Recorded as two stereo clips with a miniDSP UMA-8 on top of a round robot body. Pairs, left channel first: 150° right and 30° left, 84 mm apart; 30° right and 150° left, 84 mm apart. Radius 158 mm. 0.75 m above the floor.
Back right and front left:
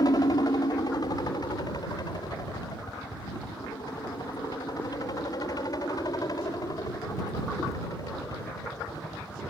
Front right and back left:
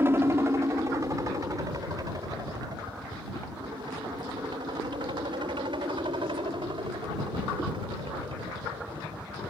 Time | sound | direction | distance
0.0 | a helicopter | 155° right | ?